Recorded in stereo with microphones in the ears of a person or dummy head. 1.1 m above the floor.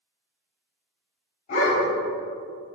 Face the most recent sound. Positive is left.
turn(degrees=35)  # may be behind; listen again after turning